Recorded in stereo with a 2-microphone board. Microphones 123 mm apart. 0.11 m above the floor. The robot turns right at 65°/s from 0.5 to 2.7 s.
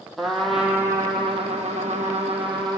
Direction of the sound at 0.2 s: Straight behind.